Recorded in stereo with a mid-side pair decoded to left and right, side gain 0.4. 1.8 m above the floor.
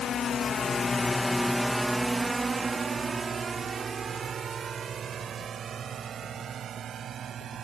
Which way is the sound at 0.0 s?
65° left.